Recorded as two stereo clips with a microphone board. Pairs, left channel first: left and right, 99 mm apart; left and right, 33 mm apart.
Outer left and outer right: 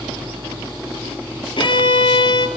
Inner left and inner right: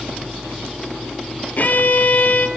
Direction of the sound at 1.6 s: 55° left (ahead or behind).